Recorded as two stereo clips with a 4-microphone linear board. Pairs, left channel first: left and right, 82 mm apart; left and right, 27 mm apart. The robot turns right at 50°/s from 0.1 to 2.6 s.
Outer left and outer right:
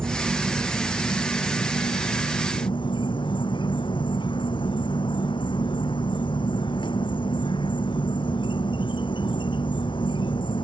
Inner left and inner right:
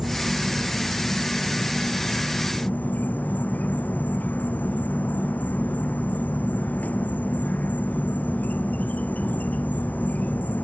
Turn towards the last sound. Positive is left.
turn(degrees=95)